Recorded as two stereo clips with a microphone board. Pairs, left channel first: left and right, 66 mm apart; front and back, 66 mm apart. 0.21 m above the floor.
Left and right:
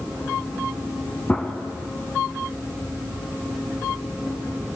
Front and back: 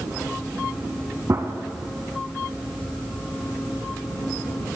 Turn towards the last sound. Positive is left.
turn(degrees=155)